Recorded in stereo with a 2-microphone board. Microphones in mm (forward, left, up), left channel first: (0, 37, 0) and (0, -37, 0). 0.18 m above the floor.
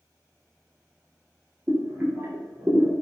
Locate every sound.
1.7 s boiling: 30° right (ahead or behind), 1.2 m